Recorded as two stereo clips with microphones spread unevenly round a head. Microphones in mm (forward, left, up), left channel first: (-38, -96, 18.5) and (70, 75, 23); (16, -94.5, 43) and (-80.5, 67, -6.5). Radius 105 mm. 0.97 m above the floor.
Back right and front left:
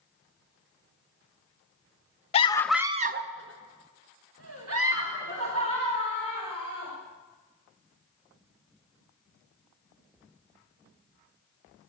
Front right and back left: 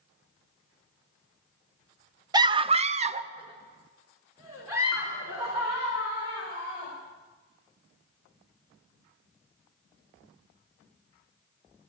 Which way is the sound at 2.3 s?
Straight behind.